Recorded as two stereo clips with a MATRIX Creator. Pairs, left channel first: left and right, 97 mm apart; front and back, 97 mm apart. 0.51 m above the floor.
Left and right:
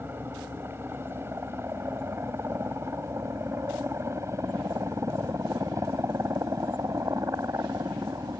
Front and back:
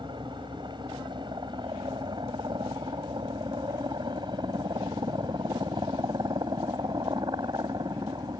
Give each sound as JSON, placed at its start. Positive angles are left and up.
{"t": 0.0, "sound": "a helicopter", "azimuth_deg": -155}